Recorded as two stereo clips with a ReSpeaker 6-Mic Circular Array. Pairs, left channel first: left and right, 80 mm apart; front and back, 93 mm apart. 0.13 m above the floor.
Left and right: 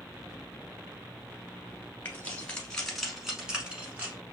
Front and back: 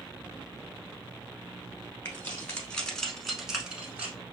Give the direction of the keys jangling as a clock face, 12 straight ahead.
11 o'clock.